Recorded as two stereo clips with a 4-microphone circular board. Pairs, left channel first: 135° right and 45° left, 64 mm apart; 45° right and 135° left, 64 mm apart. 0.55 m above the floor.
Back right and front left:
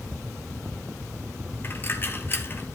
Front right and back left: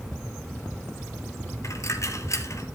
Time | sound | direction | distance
1.6 | a dropped coin | 80° right | 1.6 m